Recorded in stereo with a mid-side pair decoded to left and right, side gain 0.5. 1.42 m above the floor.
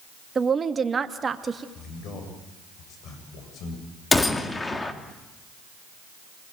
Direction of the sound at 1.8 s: 65° left.